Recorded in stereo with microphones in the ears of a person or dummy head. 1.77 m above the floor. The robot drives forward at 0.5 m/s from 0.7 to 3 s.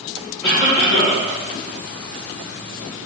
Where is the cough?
45° left (ahead or behind), 1.7 m; by 1.2 s 50° left (ahead or behind), 1.6 m.